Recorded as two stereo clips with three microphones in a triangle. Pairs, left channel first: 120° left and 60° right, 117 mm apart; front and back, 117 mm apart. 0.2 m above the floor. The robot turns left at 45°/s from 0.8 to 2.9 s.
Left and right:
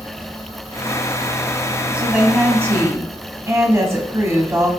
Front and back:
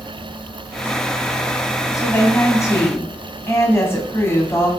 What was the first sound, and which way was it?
A woman speaking, 10° left.